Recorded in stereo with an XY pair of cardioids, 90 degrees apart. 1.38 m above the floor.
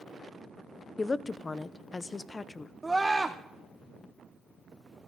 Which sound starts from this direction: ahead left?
A woman speaking, at 1.0 s.